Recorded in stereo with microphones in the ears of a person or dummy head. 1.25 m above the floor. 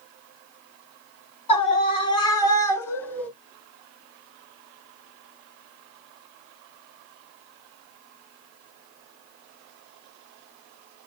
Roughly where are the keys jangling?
I don't hear keys jangling.